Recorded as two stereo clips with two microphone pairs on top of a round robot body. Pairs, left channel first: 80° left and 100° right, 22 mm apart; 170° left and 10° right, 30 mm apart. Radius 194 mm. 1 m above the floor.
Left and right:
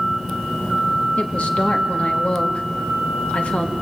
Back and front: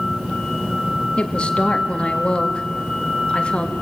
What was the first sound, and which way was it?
A woman speaking, 110° left.